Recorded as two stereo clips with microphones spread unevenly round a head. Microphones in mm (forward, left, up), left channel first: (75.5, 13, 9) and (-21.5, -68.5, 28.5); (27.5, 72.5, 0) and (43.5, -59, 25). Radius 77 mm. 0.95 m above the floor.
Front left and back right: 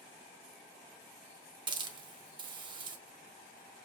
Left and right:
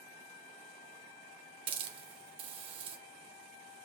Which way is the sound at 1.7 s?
110° right.